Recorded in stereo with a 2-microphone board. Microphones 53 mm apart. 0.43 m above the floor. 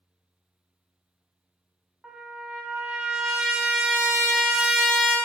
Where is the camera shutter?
No camera shutter in this recording.